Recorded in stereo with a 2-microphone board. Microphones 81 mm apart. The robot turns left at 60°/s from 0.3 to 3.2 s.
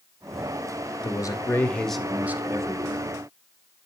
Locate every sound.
1.0 s a man speaking: 55° left, 1.9 m; by 3.1 s 70° right, 1.9 m